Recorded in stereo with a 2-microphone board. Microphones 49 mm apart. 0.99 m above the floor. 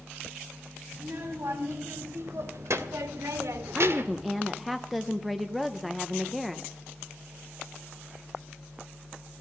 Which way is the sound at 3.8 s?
5° right (ahead or behind).